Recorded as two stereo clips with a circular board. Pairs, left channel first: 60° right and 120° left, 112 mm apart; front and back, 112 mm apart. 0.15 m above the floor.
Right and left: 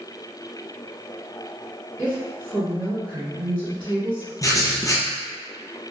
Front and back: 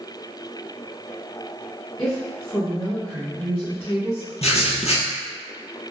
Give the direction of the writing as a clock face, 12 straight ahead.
12 o'clock.